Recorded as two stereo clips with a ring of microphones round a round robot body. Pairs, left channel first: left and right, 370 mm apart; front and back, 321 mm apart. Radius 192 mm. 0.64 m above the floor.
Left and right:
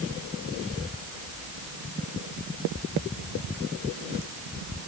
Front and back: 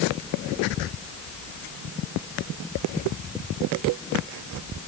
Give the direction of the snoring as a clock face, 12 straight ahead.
No snoring in this recording.